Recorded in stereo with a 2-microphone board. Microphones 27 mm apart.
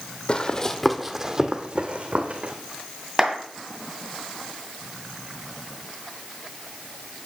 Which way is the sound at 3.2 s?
25° right (ahead or behind).